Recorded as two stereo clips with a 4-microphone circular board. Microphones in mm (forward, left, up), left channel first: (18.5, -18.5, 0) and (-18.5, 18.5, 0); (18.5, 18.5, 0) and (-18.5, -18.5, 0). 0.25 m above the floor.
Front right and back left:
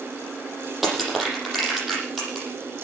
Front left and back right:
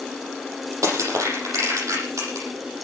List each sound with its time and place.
0.8 s crushing: 135° right, 8.5 m